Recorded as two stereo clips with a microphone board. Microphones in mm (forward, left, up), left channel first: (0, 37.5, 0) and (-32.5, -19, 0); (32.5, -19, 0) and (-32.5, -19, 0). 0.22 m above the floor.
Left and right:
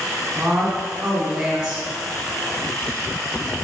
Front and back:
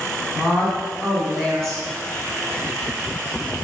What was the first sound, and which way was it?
A woman speaking, 50° right.